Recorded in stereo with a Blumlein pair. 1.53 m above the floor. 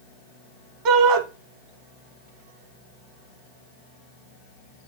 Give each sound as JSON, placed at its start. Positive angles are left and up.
{"t": 0.8, "sound": "a shout", "azimuth_deg": -40, "distance_m": 2.0}